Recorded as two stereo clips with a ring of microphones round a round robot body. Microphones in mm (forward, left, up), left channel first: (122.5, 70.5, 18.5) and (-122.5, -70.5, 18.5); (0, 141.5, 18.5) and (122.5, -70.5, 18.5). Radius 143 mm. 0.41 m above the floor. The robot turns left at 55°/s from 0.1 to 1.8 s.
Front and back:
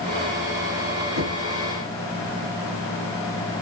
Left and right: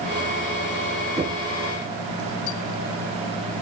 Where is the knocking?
125° right, 4.5 m; by 1.4 s 140° right, 4.5 m.